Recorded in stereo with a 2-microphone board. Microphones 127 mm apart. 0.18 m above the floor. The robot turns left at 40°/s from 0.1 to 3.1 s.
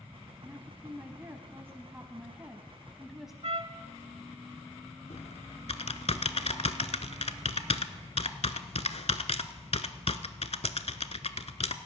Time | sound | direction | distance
0.4 | a woman speaking | 20° right (ahead or behind) | 1.1 m
3.4 | a trumpet | 60° right (ahead or behind) | 0.7 m
5.1 | typing on a keyboard | 65° left (ahead or behind) | 0.6 m